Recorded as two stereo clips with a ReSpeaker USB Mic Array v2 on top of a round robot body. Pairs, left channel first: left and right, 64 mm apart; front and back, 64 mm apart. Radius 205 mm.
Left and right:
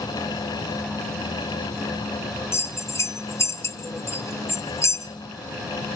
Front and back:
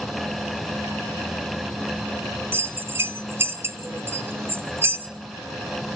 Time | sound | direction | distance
2.5 | a bell | 125° left | 1.4 m